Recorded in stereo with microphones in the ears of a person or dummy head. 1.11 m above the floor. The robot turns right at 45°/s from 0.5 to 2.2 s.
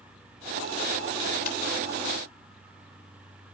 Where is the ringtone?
55° left (ahead or behind), 7 m; by 1.6 s 60° left (ahead or behind), 7 m.